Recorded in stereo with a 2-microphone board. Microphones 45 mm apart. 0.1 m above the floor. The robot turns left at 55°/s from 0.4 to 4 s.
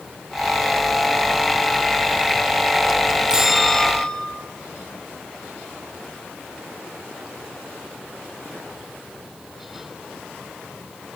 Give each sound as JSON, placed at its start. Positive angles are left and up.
{"t": 3.3, "sound": "a bell", "azimuth_deg": -165, "distance_m": 3.0}